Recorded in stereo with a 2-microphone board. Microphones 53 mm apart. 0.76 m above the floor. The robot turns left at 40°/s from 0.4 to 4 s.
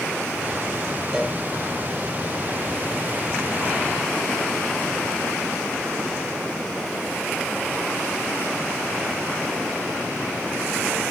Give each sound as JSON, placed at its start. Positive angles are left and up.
{"t": 1.1, "sound": "a cowbell", "side_deg": -5, "distance_m": 2.5}